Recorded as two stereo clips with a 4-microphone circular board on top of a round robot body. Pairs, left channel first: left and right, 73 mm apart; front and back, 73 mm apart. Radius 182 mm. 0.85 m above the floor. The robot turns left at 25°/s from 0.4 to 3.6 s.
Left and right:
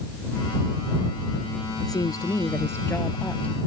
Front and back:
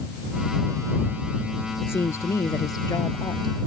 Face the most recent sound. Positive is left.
turn(degrees=15)